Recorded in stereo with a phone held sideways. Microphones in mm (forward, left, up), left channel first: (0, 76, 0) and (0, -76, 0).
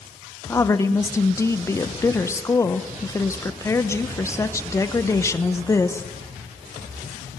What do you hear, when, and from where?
0.5 s a woman speaking: 20° left (ahead or behind), 1.0 m